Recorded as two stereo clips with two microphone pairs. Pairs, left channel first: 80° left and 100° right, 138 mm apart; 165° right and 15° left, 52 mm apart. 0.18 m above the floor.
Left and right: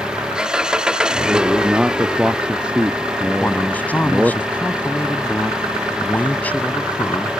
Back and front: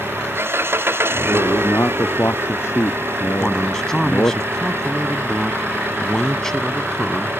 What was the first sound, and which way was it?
An engine running, 15° right.